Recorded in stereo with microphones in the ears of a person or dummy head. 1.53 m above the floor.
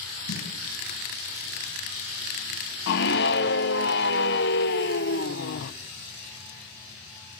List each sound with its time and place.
0.3 s a snare drum: 70° left (ahead or behind), 6 m
2.9 s a scream: 60° left (ahead or behind), 0.9 m